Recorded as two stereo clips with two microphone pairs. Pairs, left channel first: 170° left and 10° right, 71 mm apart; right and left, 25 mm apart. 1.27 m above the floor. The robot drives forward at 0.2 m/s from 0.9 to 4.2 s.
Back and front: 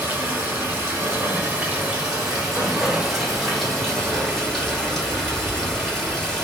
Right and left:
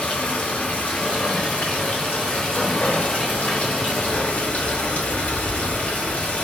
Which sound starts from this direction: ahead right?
Running water, at 0.0 s.